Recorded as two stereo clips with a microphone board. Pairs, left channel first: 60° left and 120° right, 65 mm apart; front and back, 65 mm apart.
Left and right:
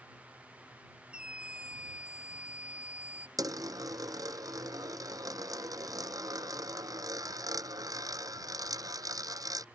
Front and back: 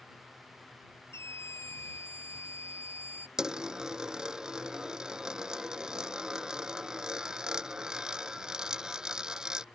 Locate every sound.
1.1 s a scream: 45° right; by 3.3 s 50° right
3.4 s a dropped coin: 100° right